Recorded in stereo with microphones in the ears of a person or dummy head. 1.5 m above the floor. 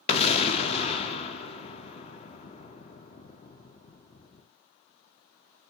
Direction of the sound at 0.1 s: 30° left (ahead or behind).